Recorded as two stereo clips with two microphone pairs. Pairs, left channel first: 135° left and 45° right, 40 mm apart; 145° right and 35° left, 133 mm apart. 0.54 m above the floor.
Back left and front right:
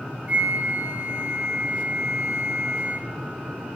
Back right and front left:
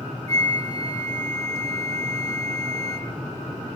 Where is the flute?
85° right, 1.1 m.